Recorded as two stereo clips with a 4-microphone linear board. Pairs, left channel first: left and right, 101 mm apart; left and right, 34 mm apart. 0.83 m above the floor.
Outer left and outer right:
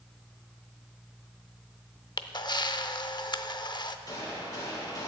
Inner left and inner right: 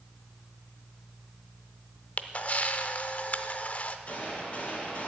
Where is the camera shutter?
45° left (ahead or behind), 0.5 m.